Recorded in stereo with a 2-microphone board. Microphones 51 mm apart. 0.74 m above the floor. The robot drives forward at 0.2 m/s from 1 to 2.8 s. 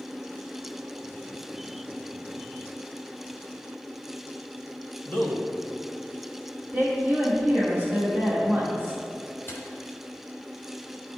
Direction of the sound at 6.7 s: 25° right (ahead or behind).